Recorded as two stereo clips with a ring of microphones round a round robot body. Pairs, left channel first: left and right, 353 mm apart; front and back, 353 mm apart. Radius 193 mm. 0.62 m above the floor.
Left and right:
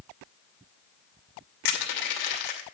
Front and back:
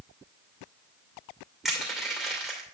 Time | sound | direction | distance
1.6 | crushing | 90° left | 2.5 m